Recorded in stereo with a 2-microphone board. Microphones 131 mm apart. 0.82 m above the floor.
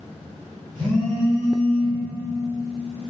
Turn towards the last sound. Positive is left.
turn(degrees=-35)  # may be behind; listen again after turning